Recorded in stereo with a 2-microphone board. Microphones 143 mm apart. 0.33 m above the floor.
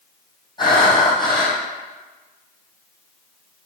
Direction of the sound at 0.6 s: 30° left (ahead or behind).